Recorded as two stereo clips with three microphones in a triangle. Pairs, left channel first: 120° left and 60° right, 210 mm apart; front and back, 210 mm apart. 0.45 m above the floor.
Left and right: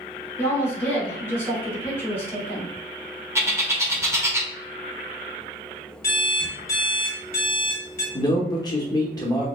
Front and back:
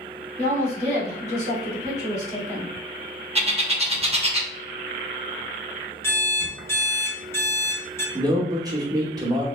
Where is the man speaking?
150° left, 0.8 m.